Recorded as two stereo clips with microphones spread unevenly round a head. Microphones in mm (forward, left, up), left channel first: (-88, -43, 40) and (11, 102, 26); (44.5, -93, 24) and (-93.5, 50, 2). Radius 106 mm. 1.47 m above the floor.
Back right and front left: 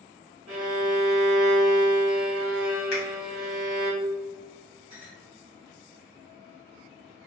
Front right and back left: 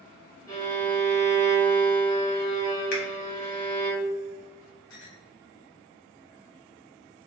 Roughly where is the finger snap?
Right.